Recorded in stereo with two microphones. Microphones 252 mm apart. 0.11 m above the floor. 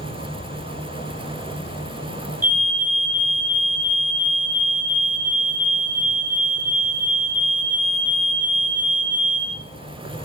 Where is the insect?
40° left (ahead or behind), 2.5 m.